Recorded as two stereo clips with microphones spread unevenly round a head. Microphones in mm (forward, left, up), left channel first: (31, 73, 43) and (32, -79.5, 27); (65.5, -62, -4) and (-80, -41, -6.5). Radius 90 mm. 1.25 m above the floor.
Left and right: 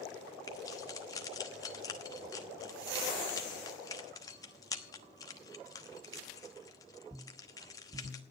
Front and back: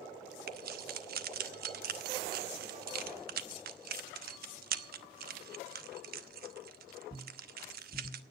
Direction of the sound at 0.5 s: 155° left.